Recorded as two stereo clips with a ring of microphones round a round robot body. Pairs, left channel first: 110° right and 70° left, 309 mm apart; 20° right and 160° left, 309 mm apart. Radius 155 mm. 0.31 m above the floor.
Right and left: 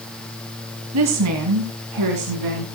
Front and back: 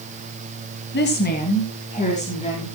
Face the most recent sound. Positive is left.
turn(degrees=50)